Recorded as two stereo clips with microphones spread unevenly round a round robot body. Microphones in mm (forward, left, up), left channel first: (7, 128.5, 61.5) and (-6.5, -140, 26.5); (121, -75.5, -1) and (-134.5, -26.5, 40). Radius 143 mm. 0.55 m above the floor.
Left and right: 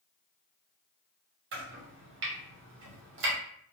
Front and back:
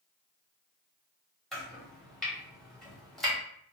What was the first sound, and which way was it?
Chopping, 90° right.